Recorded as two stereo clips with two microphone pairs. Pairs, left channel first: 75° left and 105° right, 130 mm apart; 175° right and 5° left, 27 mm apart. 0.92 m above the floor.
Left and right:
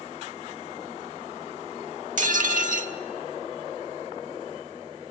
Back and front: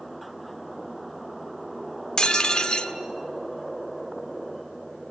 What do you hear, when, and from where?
2.2 s dishes clattering: 115° right, 1.4 m